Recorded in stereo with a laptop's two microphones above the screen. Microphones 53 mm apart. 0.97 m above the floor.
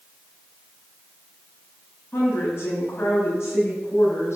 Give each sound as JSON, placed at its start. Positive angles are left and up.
{"t": 2.1, "sound": "a woman speaking", "side_deg": 45, "distance_m": 6.5}